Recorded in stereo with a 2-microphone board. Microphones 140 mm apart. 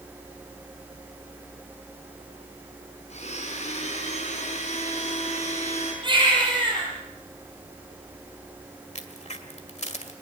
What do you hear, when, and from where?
3.1 s a blender: 55° left (ahead or behind), 6 m
6.0 s a baby crying: 35° right (ahead or behind), 8 m
8.9 s a crack: 55° left (ahead or behind), 1.9 m